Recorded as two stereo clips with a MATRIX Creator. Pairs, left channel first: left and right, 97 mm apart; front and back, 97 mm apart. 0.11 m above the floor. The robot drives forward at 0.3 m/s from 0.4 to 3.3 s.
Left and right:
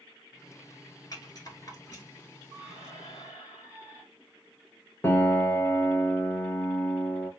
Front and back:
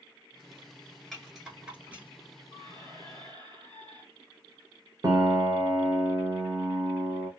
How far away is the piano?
About 0.5 m.